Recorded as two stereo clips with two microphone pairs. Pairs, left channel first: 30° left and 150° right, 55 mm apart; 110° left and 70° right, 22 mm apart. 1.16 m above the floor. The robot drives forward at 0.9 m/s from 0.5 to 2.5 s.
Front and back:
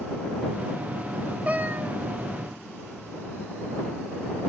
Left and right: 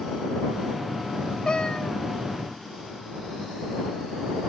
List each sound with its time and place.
1.4 s a cat meowing: 150° left, 0.5 m; by 2.0 s 165° left, 0.9 m